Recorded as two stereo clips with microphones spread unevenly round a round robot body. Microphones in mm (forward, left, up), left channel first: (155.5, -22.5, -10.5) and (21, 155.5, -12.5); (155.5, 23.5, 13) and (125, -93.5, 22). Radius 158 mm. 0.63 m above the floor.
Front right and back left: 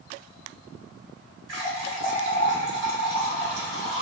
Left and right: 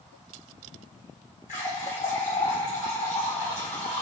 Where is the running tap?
100° left, 1.1 m.